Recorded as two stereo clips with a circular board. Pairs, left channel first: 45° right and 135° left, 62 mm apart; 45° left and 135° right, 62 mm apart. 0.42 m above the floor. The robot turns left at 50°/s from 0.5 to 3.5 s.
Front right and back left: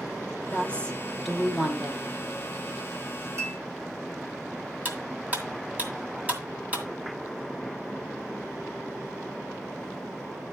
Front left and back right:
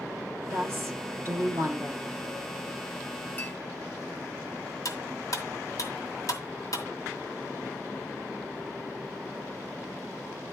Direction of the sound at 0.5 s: 95° right.